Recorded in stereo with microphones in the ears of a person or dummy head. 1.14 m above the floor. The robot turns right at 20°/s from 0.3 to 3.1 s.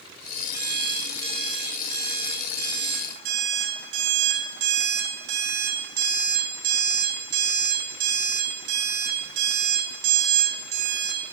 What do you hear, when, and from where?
0.5 s an alarm clock: 155° right, 1.5 m; by 11.2 s 105° right, 1.5 m